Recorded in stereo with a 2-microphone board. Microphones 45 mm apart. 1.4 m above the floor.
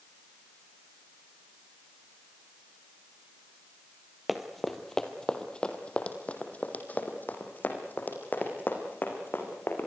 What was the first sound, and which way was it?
Running footsteps, 5° right (ahead or behind).